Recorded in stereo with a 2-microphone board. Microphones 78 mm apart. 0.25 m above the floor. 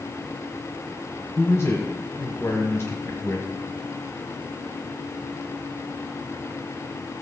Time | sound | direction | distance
1.4 | a man speaking | 35° left (ahead or behind) | 1.4 m